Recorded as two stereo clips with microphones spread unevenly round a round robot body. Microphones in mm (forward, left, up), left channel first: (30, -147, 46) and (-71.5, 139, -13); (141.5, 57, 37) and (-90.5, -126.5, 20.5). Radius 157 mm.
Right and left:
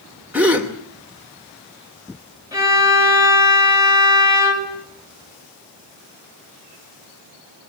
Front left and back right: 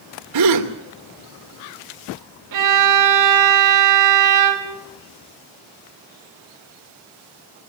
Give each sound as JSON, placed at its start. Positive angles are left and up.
{"t": 0.3, "sound": "a gasp", "azimuth_deg": -165, "distance_m": 2.5}
{"t": 2.5, "sound": "a violin", "azimuth_deg": -170, "distance_m": 5.0}